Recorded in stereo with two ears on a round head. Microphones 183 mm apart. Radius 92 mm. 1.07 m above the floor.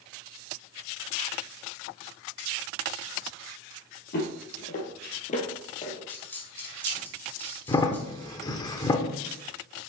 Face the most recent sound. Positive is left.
turn(degrees=20)  # may be behind; listen again after turning